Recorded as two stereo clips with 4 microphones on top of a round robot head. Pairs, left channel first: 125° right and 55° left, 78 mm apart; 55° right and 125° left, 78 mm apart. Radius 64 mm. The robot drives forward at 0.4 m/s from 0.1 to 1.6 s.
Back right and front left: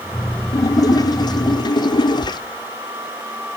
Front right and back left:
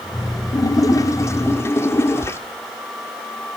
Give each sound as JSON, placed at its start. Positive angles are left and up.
{"t": 0.5, "sound": "a splash", "azimuth_deg": -90, "distance_m": 1.3}